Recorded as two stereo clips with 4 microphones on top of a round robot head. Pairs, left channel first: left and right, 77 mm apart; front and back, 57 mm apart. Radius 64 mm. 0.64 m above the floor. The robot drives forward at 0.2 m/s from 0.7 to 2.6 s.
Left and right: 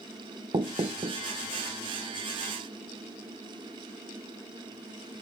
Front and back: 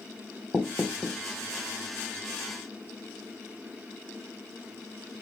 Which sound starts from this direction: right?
Knocking, at 0.5 s.